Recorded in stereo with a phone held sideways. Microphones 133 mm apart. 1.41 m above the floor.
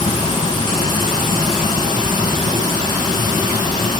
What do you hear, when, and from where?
0.0 s running water: 35° left (ahead or behind), 5 m